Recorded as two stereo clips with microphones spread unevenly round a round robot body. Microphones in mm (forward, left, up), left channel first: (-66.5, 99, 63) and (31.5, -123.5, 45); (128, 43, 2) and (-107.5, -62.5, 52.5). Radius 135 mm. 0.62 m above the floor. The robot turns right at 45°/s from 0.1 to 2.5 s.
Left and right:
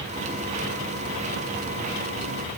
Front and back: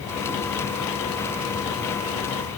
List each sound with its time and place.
Only background noise.